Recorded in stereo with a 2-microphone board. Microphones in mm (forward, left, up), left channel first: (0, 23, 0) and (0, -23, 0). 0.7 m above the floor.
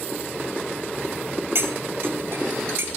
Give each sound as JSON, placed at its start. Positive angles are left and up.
{"t": 1.6, "sound": "cutlery clinking", "side_deg": -60, "distance_m": 2.0}